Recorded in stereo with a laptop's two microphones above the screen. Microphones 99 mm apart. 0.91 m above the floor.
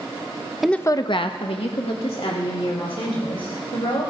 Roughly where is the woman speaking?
Centre.